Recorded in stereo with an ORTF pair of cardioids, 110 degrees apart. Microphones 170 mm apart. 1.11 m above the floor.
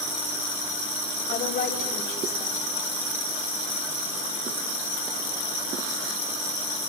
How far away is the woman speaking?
About 6.5 m.